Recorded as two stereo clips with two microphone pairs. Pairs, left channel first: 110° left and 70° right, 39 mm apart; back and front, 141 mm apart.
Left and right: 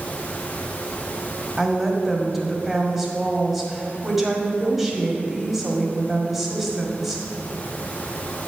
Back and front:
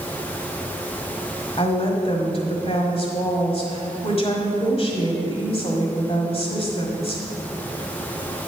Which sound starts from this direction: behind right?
A woman speaking, at 1.6 s.